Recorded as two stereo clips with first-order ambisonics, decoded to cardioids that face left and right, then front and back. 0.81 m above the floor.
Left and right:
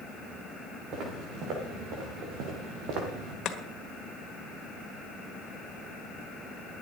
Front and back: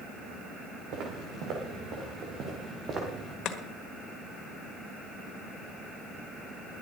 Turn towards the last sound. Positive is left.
turn(degrees=40)